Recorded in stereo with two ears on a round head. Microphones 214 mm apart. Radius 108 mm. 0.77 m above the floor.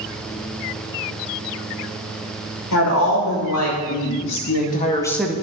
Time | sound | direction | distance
2.7 | a woman speaking | 75° left (ahead or behind) | 3 m